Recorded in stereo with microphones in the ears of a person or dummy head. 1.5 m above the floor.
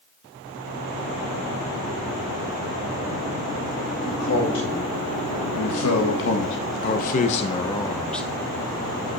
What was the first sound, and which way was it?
A man speaking, 80° left.